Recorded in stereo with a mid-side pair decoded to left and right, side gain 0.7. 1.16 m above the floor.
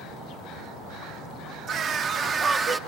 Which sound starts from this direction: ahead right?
A scream, at 1.7 s.